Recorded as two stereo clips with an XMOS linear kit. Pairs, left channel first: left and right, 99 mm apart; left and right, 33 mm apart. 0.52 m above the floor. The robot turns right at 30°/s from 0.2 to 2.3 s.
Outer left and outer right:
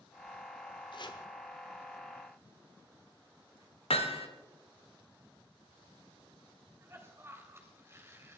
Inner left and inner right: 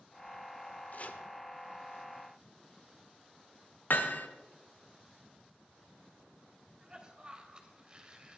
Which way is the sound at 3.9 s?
75° left (ahead or behind).